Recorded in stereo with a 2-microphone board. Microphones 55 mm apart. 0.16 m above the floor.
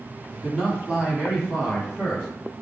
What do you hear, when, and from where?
0.3 s a man speaking: 5° right (ahead or behind), 1.8 m; by 2.3 s 15° right (ahead or behind), 1.9 m